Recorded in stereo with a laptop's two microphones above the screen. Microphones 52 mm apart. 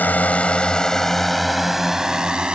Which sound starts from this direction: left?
A drone, at 0.0 s.